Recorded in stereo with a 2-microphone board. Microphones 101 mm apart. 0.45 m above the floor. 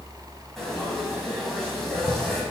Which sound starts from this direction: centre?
Frying, at 0.6 s.